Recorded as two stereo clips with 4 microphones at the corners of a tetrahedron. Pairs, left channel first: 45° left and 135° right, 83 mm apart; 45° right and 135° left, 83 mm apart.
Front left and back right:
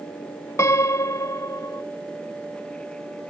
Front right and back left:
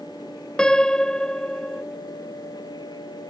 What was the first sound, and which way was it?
A piano, 30° left.